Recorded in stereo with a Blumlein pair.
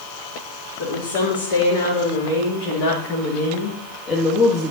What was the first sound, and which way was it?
A woman speaking, 60° left.